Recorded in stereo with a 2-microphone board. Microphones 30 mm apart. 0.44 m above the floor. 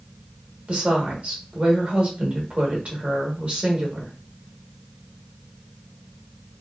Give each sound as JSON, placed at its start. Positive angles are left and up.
{"t": 0.7, "sound": "a woman speaking", "side_deg": -45, "distance_m": 1.0}